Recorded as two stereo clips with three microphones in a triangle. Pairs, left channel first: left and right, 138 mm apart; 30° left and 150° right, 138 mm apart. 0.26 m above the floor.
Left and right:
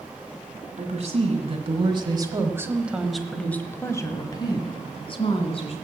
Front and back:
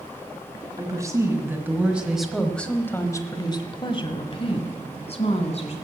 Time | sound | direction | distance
0.8 | a woman speaking | 90° right | 1.9 m